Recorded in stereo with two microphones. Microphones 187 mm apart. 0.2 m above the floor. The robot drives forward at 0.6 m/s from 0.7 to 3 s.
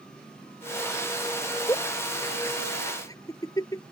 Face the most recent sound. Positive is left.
turn(degrees=20)  # may be behind; listen again after turning